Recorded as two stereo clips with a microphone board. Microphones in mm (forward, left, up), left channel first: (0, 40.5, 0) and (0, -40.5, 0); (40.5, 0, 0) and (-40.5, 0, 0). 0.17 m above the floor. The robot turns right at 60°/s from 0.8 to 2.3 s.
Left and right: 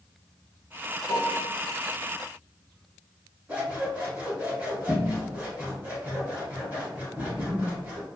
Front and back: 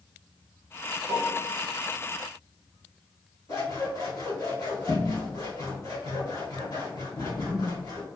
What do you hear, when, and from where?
1.1 s a piano: 130° right, 1.0 m; by 1.5 s 100° right, 1.0 m
3.5 s scissors: 25° right, 1.6 m